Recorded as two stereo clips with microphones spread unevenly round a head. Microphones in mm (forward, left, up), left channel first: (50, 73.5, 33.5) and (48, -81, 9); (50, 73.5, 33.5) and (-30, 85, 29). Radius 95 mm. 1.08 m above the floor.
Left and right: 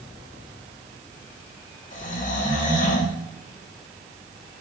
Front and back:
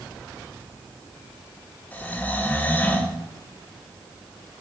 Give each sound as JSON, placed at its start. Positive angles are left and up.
{"t": 1.9, "sound": "snoring", "azimuth_deg": 60, "distance_m": 1.3}